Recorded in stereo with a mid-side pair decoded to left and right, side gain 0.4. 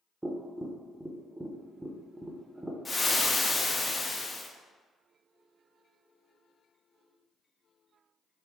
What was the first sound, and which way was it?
Tapping, 10° right.